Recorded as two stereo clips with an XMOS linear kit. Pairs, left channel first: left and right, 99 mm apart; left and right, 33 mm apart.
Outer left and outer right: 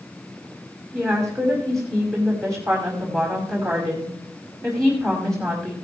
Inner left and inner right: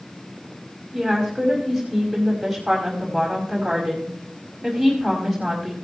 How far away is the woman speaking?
About 4.5 m.